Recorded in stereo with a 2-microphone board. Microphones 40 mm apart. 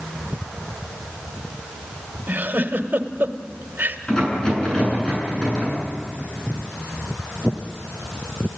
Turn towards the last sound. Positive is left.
turn(degrees=20)  # may be behind; listen again after turning